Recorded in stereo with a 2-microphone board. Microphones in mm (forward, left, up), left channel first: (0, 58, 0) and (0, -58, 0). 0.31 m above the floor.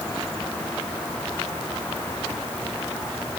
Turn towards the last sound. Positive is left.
No sound to turn to.